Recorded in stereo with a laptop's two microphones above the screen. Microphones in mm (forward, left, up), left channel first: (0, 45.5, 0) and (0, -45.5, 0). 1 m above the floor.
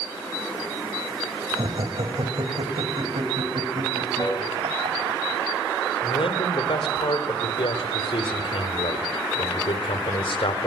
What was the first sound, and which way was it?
Laughter, 55° right (ahead or behind).